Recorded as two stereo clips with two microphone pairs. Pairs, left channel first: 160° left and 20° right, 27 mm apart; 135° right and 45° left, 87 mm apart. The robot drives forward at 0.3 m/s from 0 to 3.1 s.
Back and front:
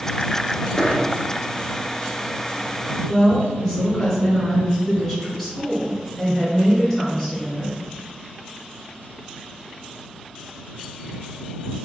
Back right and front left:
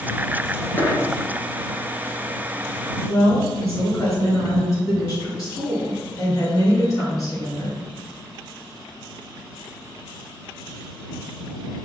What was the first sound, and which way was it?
A dropped coin, 165° left.